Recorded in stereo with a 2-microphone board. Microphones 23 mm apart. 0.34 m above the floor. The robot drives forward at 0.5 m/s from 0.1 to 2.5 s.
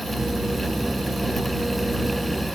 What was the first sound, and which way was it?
Only background noise.